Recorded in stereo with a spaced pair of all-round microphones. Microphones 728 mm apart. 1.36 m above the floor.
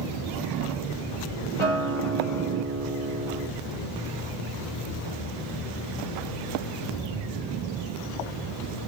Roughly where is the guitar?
Right.